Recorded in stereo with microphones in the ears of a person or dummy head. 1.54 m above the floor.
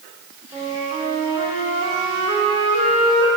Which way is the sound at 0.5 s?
25° right (ahead or behind).